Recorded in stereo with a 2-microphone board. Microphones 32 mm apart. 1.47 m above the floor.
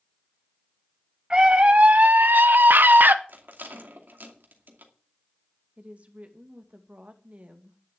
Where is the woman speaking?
45° right (ahead or behind), 2 m.